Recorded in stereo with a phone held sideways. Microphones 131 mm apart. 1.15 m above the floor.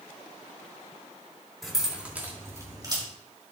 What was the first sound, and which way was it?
Keys jangling, centre (ahead or behind).